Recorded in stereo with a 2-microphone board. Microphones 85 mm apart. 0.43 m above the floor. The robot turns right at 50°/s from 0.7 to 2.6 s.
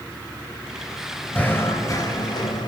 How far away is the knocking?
About 1.3 m.